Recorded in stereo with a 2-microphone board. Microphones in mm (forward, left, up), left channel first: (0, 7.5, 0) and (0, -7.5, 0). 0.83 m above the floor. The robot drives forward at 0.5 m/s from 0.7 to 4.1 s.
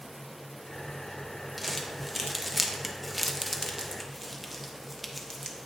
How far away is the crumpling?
About 0.9 m.